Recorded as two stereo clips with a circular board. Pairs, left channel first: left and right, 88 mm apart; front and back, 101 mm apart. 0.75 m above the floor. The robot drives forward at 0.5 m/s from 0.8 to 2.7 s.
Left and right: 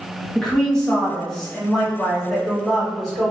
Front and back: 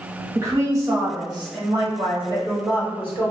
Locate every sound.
0.3 s a woman speaking: 165° left, 0.9 m; by 3.3 s 175° left, 1.6 m